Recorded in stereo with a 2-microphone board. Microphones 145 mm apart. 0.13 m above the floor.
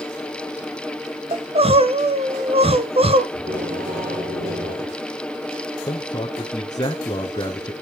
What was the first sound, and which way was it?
Crying, 45° right (ahead or behind).